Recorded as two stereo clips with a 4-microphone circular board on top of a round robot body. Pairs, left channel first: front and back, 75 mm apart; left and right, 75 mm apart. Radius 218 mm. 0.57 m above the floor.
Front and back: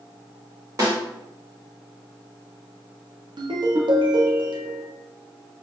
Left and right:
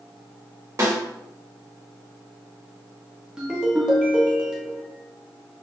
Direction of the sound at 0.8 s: 135° right.